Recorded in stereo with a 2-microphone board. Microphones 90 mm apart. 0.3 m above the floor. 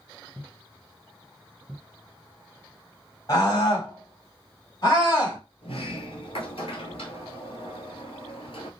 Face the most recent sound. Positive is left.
turn(degrees=85)